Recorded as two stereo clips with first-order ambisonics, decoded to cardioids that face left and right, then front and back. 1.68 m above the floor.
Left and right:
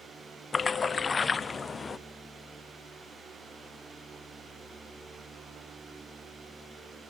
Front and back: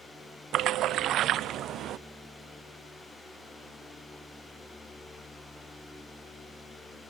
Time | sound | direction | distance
0.5 | a splash | 155° left | 0.5 m